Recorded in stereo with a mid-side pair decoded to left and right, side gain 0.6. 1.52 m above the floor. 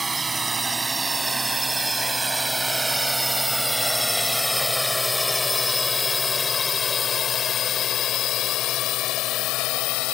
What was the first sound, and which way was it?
A drone, 20° right.